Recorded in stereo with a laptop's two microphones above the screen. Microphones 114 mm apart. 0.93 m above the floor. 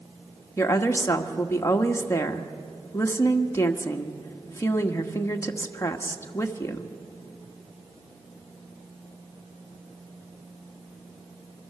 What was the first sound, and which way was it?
A woman speaking, 25° left (ahead or behind).